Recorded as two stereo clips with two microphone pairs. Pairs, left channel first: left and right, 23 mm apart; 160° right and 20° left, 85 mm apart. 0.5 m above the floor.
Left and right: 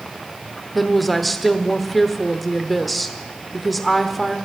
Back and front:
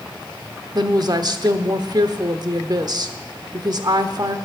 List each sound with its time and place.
0.8 s a woman speaking: 5° left, 1.0 m